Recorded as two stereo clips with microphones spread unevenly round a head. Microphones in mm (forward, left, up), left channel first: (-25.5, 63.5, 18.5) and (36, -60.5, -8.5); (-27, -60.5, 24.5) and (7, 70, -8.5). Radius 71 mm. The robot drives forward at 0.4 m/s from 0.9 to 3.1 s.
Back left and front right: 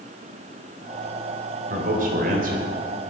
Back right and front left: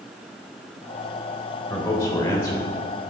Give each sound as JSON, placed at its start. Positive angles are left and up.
{"t": 1.7, "sound": "a man speaking", "azimuth_deg": -35, "distance_m": 4.0}